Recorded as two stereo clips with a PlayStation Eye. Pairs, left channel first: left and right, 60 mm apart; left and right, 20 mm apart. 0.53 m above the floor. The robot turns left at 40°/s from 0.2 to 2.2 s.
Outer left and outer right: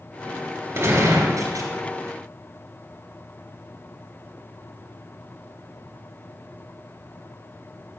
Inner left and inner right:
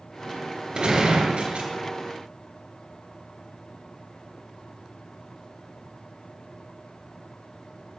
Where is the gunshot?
45° right, 3.5 m; by 1.7 s 80° right, 3.5 m.